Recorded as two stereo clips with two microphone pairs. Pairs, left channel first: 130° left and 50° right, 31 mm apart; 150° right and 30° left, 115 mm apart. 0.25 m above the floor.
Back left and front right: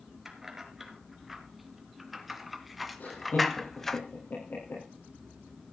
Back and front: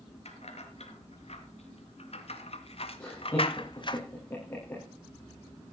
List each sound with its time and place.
0.2 s keys jangling: 125° right, 3 m; by 4.0 s 160° right, 1.0 m
3.0 s laughter: 140° left, 7 m